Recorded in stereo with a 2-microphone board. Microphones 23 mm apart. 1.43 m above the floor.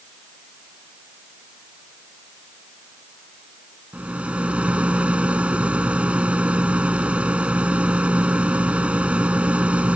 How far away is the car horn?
No car horn in this recording.